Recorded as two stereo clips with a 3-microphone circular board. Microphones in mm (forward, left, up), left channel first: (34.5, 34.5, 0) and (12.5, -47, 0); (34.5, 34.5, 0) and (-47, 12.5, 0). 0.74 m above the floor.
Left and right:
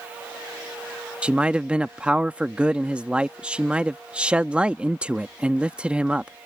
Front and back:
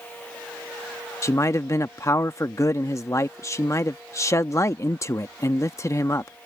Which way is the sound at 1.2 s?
30° right.